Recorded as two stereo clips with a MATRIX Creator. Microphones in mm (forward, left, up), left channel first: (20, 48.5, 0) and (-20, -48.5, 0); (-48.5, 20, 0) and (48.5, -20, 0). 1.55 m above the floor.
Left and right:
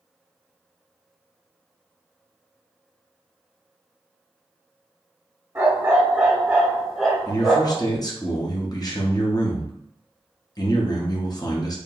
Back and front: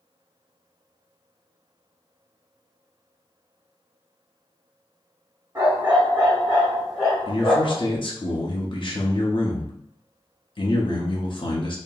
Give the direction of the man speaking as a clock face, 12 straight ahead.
8 o'clock.